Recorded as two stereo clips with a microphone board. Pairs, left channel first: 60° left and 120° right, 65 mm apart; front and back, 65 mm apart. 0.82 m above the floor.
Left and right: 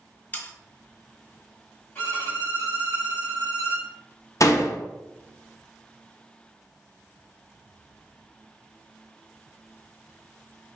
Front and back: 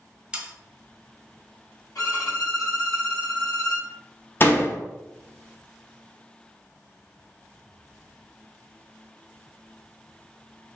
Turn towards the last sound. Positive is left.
turn(degrees=45)